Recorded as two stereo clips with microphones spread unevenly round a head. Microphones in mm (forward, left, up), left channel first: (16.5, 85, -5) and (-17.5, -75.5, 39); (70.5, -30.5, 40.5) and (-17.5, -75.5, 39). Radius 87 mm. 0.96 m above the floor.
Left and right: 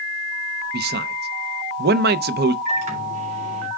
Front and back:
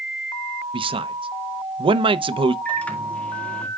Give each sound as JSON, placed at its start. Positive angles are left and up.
{"t": 0.7, "sound": "a man speaking", "azimuth_deg": -135, "distance_m": 0.7}
{"t": 2.6, "sound": "a microwave", "azimuth_deg": -50, "distance_m": 2.5}